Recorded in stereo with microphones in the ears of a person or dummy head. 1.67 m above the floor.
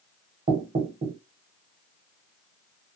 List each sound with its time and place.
0.5 s knocking: 25° right (ahead or behind), 1.0 m